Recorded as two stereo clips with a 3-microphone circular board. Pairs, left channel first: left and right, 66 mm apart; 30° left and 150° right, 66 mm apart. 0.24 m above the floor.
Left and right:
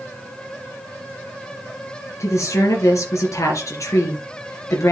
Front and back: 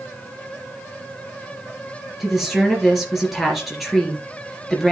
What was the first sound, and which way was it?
A woman speaking, 125° left.